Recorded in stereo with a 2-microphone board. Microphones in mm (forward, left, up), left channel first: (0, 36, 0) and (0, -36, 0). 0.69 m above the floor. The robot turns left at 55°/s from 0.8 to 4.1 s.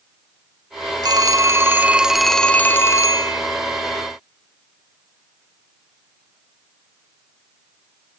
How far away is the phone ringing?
About 0.7 m.